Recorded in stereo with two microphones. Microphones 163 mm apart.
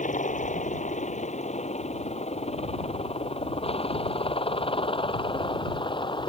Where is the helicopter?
50° left (ahead or behind); by 6.3 s 30° left (ahead or behind).